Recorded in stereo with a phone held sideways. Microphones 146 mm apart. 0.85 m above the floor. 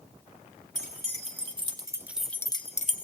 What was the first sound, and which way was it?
Keys jangling, 45° right (ahead or behind).